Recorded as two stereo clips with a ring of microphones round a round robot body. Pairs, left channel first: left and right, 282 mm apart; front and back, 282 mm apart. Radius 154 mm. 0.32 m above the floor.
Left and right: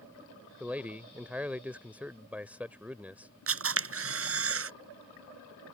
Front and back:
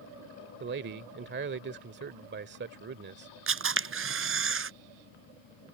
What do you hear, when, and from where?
0.6 s a man speaking: 170° right
3.5 s a camera shutter: 135° right